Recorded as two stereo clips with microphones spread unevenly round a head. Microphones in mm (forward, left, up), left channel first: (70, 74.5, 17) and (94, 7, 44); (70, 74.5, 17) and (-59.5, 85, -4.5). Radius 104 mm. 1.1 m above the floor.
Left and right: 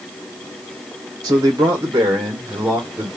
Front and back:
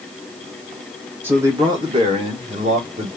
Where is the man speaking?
120° right, 1.0 m; by 3.1 s 155° right, 1.8 m.